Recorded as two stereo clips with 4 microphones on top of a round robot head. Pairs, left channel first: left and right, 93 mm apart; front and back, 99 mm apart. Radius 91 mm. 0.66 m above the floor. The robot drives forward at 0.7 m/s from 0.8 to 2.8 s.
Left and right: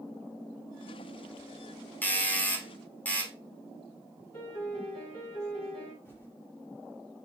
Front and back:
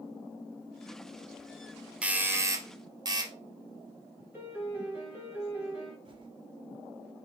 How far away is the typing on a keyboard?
About 1.2 m.